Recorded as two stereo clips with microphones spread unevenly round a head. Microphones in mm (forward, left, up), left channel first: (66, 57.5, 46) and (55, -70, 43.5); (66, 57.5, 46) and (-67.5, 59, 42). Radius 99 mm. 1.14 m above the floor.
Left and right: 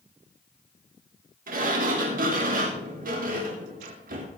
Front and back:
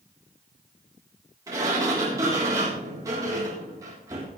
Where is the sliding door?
110° right, 3 m.